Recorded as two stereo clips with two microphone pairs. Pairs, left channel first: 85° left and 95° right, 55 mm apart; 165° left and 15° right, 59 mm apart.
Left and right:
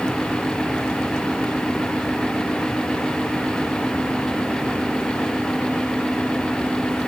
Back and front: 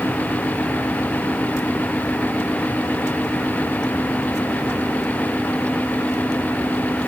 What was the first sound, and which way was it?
Only background noise.